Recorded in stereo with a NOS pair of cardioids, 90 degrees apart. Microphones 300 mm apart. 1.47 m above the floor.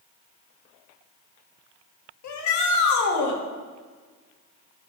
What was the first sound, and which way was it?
A shout, 65° left.